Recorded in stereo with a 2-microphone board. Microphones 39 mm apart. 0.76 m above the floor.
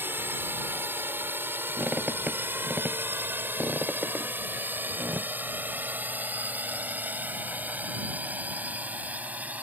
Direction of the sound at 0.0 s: 60° right (ahead or behind).